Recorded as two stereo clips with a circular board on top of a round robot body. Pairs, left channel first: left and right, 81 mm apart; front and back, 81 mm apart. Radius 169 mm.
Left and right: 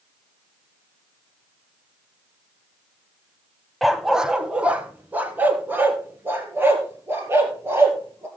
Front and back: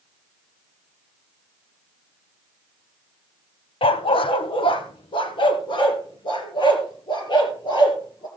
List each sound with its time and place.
3.8 s a dog barking: straight ahead, 0.8 m; by 8.3 s 30° right, 3.5 m